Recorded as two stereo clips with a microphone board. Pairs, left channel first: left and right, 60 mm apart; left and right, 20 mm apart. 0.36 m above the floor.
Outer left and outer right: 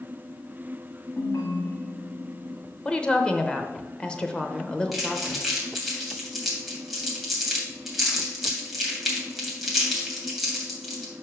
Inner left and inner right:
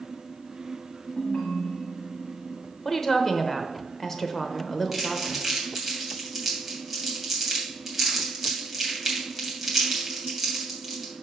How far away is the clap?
I don't hear a clap.